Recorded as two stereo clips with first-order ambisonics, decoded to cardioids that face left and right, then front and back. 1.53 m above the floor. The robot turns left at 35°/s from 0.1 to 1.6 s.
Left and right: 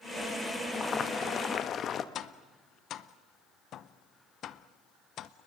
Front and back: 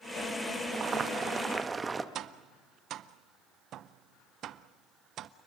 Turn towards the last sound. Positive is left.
turn(degrees=135)